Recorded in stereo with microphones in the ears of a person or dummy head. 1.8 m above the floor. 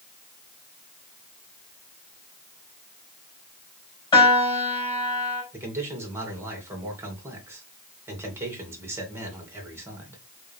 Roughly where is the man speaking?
Centre.